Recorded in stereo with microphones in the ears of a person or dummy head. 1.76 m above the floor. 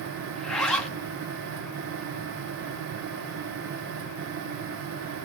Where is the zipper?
5° left (ahead or behind), 2.5 m.